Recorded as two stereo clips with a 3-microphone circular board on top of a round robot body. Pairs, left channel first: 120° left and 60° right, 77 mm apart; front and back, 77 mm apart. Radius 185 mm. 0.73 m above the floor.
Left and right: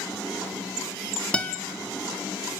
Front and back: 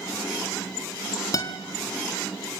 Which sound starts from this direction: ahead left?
A guitar, at 1.3 s.